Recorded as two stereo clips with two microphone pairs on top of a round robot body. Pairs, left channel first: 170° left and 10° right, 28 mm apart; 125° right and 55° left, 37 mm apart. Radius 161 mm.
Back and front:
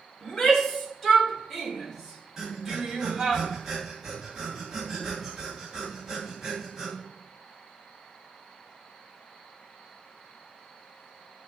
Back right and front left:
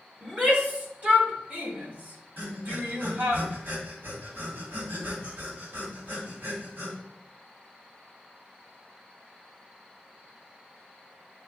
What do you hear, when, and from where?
0.2 s a shout: 110° left, 3 m; by 3.4 s 60° left, 3.5 m
2.4 s breathing: 65° left, 2.5 m